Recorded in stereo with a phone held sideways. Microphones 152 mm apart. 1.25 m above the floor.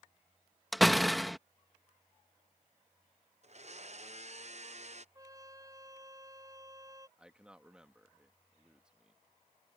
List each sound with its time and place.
0.7 s a door slam: centre (ahead or behind)
3.4 s a blender: 50° right (ahead or behind)
5.2 s a trumpet: 25° right (ahead or behind)
7.2 s a man speaking: 5° right (ahead or behind)